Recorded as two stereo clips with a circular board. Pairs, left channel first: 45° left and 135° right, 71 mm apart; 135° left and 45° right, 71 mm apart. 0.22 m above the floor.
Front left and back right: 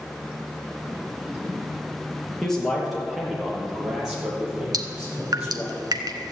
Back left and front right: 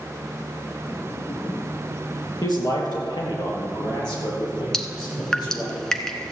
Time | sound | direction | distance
2.4 | a man speaking | 125° left | 4 m
4.7 | dripping | 145° right | 1.0 m